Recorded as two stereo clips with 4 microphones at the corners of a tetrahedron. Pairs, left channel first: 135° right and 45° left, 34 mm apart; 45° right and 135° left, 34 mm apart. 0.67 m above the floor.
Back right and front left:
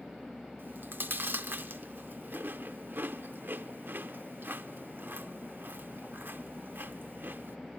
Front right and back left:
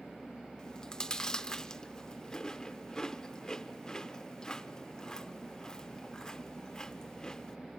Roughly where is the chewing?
Ahead left.